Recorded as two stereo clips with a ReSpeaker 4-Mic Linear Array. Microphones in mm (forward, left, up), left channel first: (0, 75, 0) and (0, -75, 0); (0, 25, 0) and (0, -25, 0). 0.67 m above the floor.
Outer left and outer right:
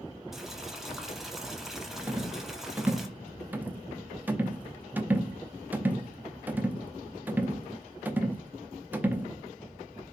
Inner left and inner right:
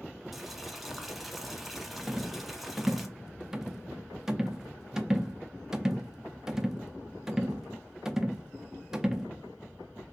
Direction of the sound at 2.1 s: 10° right (ahead or behind).